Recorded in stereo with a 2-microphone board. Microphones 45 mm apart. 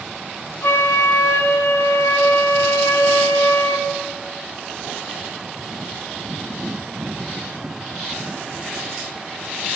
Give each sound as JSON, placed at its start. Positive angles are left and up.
{"t": 0.6, "sound": "a flute", "side_deg": 65, "distance_m": 1.0}